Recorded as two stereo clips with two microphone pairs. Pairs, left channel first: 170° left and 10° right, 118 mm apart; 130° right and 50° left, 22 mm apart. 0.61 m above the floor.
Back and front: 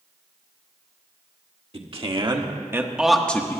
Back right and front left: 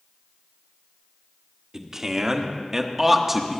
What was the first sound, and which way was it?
A man speaking, 5° right.